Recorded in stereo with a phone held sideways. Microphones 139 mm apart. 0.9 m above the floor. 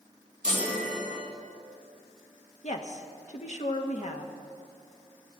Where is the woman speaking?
55° left (ahead or behind), 1.2 m.